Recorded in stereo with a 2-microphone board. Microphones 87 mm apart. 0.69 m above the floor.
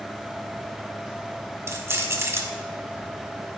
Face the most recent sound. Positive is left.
turn(degrees=-25)  # may be behind; listen again after turning